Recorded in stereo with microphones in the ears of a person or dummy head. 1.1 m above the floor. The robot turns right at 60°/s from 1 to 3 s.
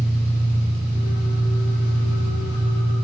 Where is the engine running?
55° left, 5 m; by 3.1 s 175° left, 5 m.